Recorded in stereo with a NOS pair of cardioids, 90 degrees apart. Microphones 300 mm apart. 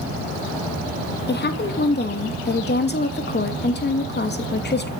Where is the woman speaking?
35° left, 2.5 m.